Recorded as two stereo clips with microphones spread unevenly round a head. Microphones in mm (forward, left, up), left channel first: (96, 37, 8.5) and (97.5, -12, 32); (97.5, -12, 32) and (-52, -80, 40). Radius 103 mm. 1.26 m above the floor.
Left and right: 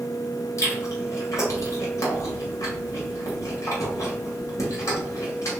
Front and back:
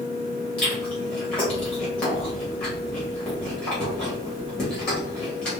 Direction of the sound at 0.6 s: 110° left.